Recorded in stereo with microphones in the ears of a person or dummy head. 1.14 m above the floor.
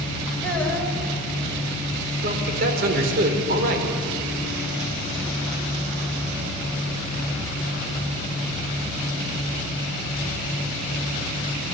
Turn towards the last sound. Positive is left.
turn(degrees=-55)  # may be behind; listen again after turning